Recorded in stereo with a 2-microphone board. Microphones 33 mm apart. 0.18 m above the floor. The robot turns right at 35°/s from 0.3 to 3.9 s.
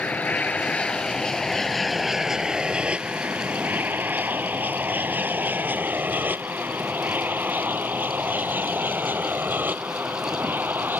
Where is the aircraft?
50° left (ahead or behind); by 11.0 s 70° right (ahead or behind).